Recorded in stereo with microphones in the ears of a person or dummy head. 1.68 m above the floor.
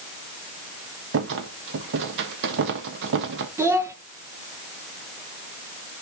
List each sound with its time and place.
1.1 s a rattle: 65° right (ahead or behind), 1.4 m
3.6 s a child speaking: 15° right (ahead or behind), 1.2 m